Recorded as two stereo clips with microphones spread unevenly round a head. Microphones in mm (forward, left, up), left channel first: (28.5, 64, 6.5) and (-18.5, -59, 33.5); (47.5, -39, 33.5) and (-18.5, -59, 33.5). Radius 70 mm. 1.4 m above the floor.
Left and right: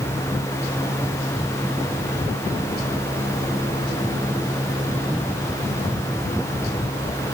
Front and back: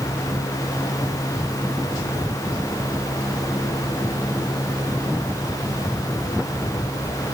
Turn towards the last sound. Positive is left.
No sound to turn to.